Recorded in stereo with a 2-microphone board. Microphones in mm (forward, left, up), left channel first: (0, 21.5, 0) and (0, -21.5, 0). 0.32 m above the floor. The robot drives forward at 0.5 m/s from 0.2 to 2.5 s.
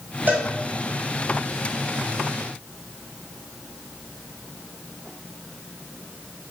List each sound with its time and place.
0.3 s a cowbell: 45° right (ahead or behind), 1.4 m